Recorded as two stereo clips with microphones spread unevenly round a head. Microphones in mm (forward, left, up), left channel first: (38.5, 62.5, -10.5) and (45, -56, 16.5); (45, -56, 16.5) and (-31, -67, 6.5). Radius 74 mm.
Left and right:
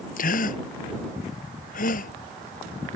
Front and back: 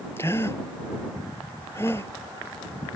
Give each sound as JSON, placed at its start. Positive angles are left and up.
{"t": 0.2, "sound": "a gasp", "azimuth_deg": 80}